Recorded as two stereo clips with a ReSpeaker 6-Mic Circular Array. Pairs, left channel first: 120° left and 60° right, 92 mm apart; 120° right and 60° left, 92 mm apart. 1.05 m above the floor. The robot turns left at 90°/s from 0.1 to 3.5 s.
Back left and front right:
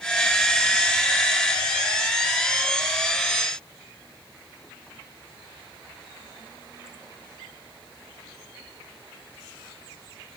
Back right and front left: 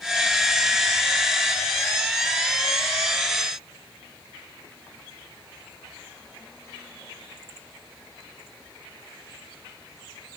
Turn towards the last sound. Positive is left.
No sound to turn to.